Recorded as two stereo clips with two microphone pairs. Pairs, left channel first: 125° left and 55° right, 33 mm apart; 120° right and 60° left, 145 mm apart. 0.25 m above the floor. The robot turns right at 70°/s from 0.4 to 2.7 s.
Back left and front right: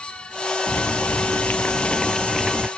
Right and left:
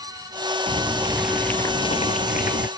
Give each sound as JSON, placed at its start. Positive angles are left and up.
{"t": 0.7, "sound": "boiling", "azimuth_deg": 100}